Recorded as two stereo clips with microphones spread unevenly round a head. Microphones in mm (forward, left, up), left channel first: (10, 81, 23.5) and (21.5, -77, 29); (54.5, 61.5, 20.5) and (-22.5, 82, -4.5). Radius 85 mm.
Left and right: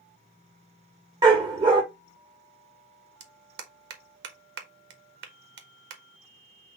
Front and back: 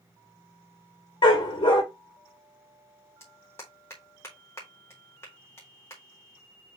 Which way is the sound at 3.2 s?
95° right.